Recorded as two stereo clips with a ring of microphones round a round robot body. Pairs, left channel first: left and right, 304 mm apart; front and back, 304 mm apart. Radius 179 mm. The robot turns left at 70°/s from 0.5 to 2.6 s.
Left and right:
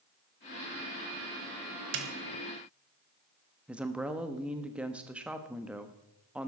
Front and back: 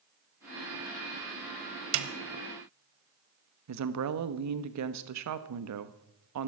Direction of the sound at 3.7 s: 175° right.